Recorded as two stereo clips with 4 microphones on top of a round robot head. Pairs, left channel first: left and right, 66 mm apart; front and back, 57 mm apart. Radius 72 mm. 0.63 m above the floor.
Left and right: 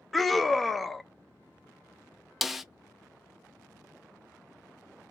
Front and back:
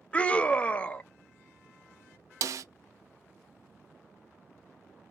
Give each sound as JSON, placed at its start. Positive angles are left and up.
{"t": 0.1, "sound": "a scream", "azimuth_deg": 5, "distance_m": 0.5}
{"t": 2.4, "sound": "a snare drum", "azimuth_deg": -175, "distance_m": 0.6}